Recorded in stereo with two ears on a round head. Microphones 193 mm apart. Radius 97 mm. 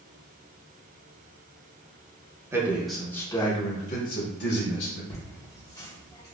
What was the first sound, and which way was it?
A man speaking, 15° right (ahead or behind).